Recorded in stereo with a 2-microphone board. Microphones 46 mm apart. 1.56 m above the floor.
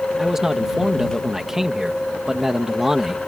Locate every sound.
0.2 s a man speaking: 10° right (ahead or behind)